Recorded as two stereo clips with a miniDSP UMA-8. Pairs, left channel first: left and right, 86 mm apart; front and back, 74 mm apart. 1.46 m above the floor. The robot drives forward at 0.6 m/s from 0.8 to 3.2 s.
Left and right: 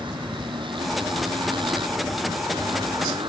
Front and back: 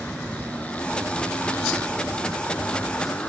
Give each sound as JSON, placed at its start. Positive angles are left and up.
{"t": 0.0, "sound": "a motorcycle", "azimuth_deg": -75}